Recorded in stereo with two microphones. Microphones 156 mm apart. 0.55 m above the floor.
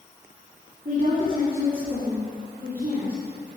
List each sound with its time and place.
0.8 s a woman speaking: 55° right (ahead or behind), 2 m